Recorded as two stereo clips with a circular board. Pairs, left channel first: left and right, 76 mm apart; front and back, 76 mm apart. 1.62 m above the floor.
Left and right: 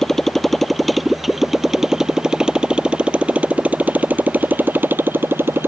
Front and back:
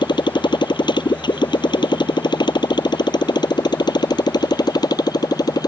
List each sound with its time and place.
0.0 s a motorcycle: 5° left; by 5.7 s 30° right